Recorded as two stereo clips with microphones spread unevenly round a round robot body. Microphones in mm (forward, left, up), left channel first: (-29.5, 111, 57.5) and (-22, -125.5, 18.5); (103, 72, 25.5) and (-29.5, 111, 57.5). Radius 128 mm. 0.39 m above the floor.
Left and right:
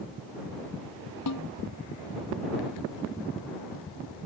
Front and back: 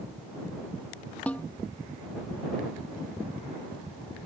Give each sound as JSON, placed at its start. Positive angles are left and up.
{"t": 1.3, "sound": "a snare drum", "azimuth_deg": 65}